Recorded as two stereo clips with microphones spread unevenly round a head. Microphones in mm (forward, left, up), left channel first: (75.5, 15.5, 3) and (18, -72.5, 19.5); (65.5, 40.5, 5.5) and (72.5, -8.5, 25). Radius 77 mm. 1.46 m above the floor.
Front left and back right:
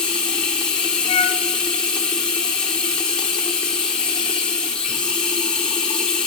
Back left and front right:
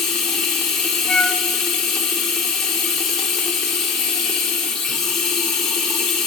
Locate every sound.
0.0 s running water: 35° right, 1.1 m
1.1 s a flute: 20° left, 0.7 m